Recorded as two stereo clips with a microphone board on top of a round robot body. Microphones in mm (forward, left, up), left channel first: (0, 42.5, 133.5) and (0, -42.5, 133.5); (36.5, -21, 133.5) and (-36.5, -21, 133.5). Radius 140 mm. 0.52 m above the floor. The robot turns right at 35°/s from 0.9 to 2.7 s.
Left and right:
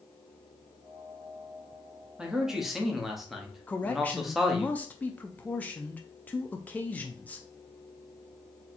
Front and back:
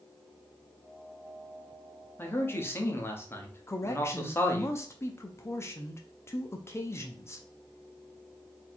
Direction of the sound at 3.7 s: 30° left.